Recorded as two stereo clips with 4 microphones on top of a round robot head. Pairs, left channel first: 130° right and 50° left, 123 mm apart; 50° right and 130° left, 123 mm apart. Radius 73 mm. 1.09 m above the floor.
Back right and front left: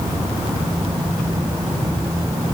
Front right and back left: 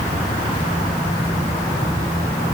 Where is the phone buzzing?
No phone buzzing in this recording.